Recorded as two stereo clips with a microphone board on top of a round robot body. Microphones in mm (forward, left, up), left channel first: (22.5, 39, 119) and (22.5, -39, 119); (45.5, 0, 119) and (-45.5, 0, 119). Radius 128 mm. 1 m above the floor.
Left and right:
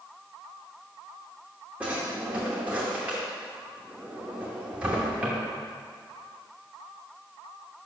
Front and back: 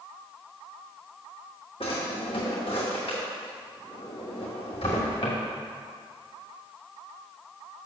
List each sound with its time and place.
1.8 s a drawer: 20° right, 0.6 m